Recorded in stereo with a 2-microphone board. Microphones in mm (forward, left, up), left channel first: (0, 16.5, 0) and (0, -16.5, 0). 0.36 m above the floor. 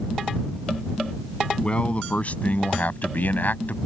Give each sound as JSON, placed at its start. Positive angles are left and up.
{"t": 1.6, "sound": "a man speaking", "side_deg": 35}